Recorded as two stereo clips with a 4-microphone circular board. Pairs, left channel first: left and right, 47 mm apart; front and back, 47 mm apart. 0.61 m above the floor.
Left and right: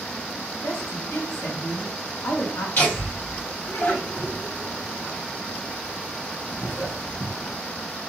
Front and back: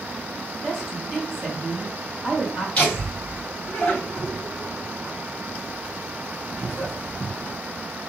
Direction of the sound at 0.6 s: 105° left.